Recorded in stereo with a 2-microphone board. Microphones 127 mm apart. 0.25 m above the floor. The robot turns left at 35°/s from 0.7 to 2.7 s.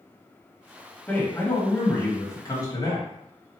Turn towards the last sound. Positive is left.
turn(degrees=95)